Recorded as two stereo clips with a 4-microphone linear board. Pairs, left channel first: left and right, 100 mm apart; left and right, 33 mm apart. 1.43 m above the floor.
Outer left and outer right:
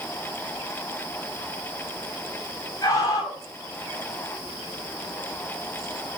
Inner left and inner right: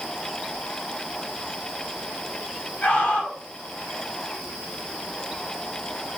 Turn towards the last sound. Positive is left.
turn(degrees=45)  # may be behind; listen again after turning